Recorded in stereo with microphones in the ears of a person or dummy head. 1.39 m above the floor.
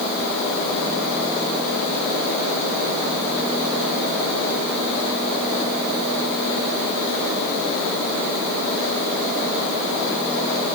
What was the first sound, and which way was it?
Only background noise.